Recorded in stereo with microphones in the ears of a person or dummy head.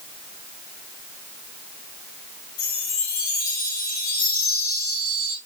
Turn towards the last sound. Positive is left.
turn(degrees=65)  # may be behind; listen again after turning